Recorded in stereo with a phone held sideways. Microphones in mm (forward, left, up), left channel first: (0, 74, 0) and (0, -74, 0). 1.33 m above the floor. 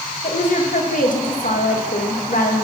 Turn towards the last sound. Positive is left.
turn(degrees=65)  # may be behind; listen again after turning